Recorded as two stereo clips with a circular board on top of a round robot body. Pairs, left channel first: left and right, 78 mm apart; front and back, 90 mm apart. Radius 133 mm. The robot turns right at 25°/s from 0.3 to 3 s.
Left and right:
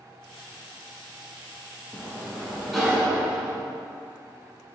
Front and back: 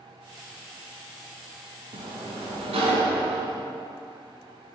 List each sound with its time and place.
1.9 s a sliding door: 165° left, 0.7 m; by 3.6 s 170° right, 0.7 m